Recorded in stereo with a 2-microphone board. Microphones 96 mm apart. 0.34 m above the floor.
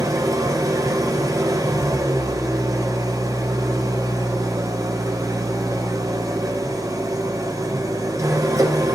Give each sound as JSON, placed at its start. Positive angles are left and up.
{"t": 0.0, "sound": "an engine running", "side_deg": -35, "distance_m": 2.5}